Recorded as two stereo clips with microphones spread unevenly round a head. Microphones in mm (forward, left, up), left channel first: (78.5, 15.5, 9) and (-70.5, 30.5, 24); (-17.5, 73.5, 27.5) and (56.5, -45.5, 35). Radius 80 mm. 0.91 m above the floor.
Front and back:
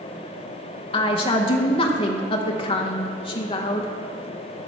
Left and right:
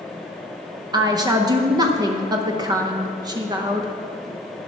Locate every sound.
0.9 s a woman speaking: 10° right, 0.7 m